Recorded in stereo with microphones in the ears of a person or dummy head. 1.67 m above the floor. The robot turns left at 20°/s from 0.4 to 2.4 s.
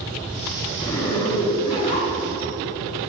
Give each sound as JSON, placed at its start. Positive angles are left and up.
{"t": 0.8, "sound": "a zipper", "azimuth_deg": 170, "distance_m": 3.5}